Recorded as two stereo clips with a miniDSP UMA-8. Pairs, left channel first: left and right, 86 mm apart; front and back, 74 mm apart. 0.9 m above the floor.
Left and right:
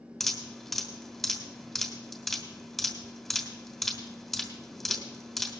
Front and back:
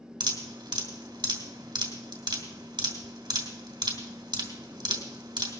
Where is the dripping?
Straight behind, 2.5 m.